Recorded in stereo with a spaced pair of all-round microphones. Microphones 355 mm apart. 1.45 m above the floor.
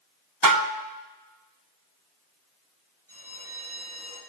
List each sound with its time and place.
0.4 s dishes clattering: 60° right (ahead or behind), 0.9 m
3.1 s a bell: 60° left (ahead or behind), 6.5 m